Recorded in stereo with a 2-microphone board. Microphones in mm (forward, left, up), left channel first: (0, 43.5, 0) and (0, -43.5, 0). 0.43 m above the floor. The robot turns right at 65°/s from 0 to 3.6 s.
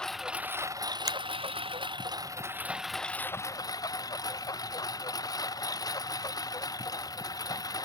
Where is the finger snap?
45° right (ahead or behind); by 1.2 s 50° right (ahead or behind).